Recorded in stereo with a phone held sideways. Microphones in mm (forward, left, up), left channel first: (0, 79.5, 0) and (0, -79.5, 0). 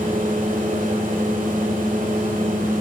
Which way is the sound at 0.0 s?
55° right (ahead or behind).